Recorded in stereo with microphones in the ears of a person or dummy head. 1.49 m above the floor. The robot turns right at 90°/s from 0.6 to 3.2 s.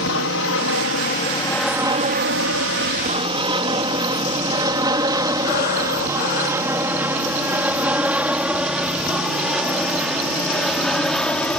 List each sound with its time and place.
0.0 s an aircraft: 65° left (ahead or behind); by 11.6 s 5° left (ahead or behind)
5.4 s breathing: 55° left (ahead or behind)